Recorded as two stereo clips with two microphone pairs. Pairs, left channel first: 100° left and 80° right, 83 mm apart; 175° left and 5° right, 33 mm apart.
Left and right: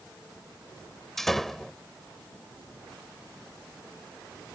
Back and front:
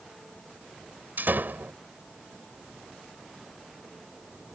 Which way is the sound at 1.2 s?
15° left.